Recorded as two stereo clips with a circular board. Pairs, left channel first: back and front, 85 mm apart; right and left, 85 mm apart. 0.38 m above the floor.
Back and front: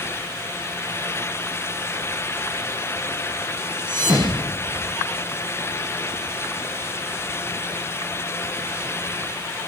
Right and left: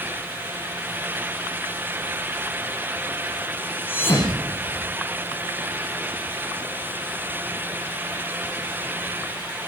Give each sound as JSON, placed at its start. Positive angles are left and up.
{"t": 3.9, "sound": "a thud", "azimuth_deg": -25, "distance_m": 7.0}